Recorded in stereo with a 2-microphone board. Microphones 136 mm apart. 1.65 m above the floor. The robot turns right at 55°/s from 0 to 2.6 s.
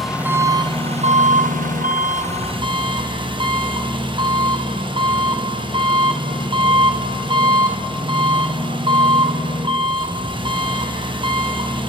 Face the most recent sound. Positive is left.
turn(degrees=-40)